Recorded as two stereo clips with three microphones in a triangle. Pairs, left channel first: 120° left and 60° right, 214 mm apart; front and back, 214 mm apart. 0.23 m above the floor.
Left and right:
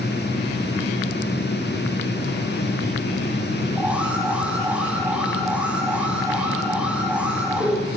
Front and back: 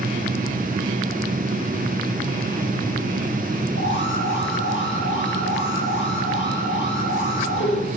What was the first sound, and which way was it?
An alarm, 25° left.